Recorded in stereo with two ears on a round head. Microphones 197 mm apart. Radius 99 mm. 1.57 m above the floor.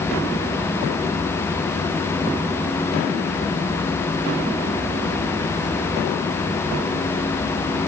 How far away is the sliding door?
No sliding door in this recording.